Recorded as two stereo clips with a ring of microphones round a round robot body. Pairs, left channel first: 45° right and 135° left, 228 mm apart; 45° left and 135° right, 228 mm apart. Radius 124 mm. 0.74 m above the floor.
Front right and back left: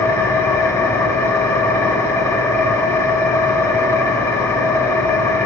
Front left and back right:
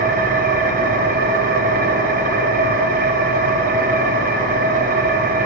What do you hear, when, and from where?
0.0 s an engine running: 115° right, 0.8 m